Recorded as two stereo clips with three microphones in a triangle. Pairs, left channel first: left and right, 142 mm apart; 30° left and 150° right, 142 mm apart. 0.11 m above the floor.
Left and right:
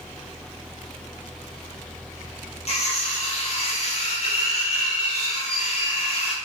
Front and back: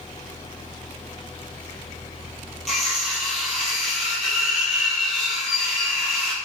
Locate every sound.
2.7 s cutlery clinking: 120° left, 1.7 m